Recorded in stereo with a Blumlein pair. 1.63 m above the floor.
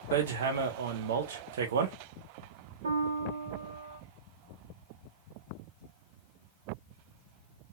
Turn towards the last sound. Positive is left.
turn(degrees=-65)